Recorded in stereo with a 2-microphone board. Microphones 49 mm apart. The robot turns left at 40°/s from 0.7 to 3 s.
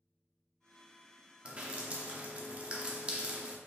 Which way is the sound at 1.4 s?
25° right (ahead or behind).